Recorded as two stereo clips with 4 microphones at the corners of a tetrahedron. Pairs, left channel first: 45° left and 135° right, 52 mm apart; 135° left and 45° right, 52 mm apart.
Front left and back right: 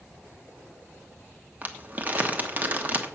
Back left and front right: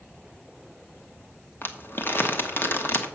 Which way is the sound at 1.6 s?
170° left.